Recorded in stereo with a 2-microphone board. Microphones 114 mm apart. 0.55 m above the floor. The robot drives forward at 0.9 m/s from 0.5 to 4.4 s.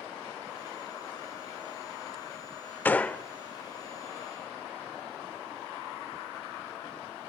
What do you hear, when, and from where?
2.9 s a gunshot: 15° left (ahead or behind), 0.7 m; by 3.2 s 10° left (ahead or behind), 1.0 m